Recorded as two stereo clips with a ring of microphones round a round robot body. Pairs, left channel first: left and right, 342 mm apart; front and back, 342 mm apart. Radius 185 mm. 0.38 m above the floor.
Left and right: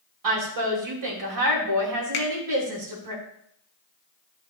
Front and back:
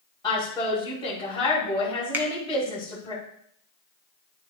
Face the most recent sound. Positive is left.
turn(degrees=100)